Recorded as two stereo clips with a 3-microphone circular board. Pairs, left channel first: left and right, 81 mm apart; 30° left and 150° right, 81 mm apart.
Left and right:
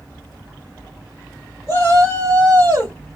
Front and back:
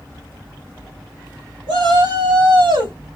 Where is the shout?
140° right, 3.5 m.